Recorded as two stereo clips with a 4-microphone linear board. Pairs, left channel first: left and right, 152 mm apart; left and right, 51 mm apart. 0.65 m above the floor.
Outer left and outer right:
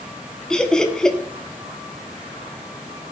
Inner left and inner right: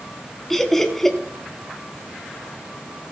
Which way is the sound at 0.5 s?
5° left (ahead or behind).